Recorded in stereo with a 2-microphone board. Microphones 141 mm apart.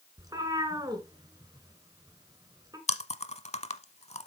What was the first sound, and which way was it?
A cat meowing, 25° right (ahead or behind).